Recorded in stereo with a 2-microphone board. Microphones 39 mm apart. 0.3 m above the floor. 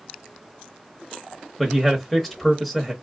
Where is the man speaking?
5° left (ahead or behind), 0.9 m.